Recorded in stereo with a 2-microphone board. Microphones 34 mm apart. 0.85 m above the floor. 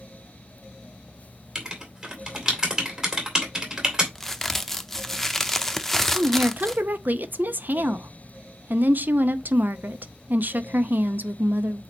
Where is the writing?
20° right (ahead or behind), 2 m.